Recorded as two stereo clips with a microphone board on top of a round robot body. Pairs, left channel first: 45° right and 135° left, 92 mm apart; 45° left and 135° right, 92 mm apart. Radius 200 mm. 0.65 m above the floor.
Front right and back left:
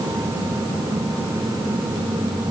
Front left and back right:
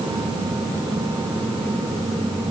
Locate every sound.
Only background noise.